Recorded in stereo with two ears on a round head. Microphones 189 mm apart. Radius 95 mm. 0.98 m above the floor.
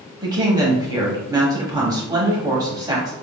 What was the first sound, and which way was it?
A woman speaking, 20° right (ahead or behind).